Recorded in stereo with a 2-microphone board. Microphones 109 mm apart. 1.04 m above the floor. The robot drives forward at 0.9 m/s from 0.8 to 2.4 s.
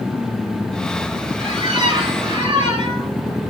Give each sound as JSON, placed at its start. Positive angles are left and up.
{"t": 1.4, "sound": "a squeak", "side_deg": -45, "distance_m": 6.0}